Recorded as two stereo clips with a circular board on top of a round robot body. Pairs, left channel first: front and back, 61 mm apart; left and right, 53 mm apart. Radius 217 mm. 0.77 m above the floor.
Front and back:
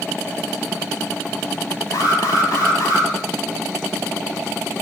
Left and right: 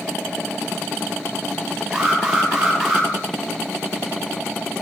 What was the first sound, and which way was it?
An alarm, 5° left.